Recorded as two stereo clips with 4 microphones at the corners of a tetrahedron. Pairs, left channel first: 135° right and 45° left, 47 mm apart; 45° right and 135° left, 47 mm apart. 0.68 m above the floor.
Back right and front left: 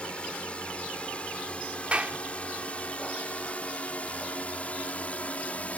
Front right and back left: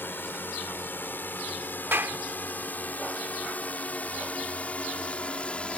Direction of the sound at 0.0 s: 75° right.